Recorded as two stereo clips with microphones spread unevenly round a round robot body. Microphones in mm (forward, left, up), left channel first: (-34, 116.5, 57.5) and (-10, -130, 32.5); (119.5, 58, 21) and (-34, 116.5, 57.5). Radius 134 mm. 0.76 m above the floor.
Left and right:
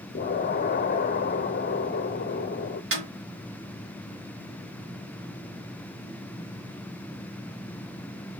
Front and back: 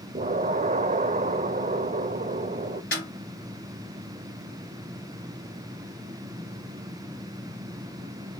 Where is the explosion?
130° left, 0.7 m.